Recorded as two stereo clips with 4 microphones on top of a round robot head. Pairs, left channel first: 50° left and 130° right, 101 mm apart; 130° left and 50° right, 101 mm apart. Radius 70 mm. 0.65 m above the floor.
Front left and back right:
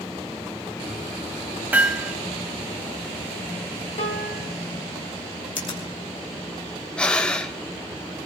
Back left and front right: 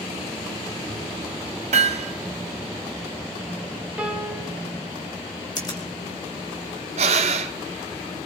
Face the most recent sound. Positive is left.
turn(degrees=-30)